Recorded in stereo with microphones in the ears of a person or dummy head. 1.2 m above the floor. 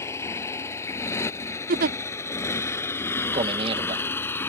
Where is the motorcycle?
15° left (ahead or behind).